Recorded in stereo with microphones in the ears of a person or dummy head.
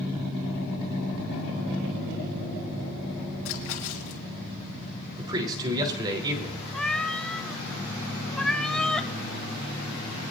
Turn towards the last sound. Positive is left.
turn(degrees=0)  # may be behind; listen again after turning